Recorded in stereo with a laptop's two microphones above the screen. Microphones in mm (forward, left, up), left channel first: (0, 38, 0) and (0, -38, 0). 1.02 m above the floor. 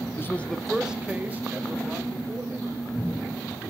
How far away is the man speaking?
About 0.8 m.